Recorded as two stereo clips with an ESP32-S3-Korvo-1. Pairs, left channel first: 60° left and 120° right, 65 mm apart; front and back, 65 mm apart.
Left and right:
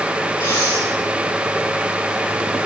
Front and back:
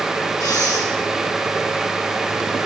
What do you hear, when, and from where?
0.4 s breathing: 50° left, 6 m